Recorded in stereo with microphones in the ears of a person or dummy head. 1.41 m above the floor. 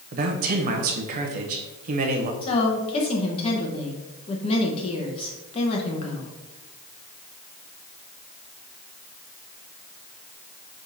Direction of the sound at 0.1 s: 50° right (ahead or behind).